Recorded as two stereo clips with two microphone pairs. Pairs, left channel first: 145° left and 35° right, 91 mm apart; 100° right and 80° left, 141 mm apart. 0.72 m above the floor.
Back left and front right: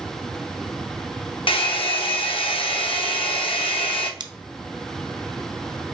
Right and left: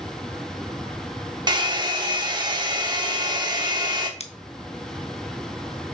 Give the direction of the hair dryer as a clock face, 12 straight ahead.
7 o'clock.